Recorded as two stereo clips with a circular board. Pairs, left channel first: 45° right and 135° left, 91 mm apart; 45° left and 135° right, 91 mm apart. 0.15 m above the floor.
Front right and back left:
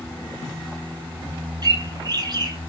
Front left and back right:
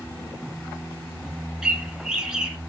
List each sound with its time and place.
1.6 s a bird: 145° left, 0.7 m